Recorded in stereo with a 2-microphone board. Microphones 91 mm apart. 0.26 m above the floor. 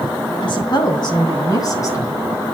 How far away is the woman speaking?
About 2.5 m.